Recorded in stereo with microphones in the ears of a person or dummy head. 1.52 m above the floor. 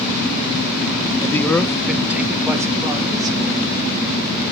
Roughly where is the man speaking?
Centre.